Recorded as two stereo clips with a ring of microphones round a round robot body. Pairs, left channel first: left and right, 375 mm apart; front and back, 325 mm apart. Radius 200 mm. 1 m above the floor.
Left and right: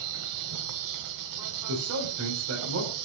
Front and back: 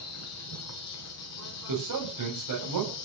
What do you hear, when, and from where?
0.0 s an insect: 50° right, 1.5 m
1.7 s a man speaking: 140° right, 5.5 m